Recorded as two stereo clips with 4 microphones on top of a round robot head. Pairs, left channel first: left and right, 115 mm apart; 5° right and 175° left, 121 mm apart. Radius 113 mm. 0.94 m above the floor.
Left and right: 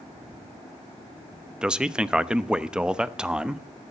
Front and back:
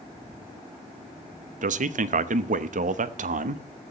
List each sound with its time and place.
1.6 s a man speaking: 170° right, 0.9 m